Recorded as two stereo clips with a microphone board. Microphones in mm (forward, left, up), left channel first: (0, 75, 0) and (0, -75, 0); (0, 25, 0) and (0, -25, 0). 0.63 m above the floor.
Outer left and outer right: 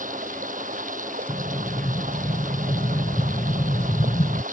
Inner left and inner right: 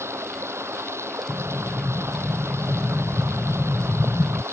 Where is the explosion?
30° left (ahead or behind).